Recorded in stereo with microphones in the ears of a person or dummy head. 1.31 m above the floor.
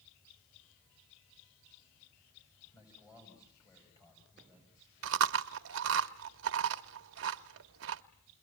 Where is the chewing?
60° right (ahead or behind), 0.8 m.